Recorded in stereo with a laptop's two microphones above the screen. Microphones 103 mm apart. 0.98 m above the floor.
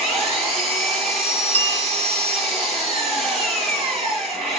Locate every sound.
0.0 s an engine running: 85° right, 8.5 m
1.5 s a bell: 75° right (ahead or behind), 2 m